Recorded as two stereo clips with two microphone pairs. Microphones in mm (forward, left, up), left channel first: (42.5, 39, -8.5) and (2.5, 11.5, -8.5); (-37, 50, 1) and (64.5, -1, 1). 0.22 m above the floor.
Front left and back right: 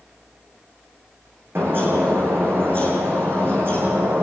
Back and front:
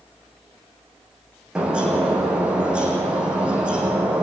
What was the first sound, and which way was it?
A bird, 110° right.